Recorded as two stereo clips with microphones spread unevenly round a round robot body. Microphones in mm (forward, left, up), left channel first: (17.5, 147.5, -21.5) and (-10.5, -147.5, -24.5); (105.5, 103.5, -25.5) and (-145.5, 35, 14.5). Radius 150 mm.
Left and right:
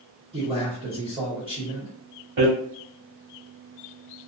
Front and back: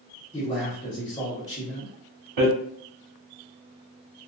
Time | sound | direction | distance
0.3 | a man speaking | 35° right | 1.1 m
2.4 | hammering | 150° right | 1.2 m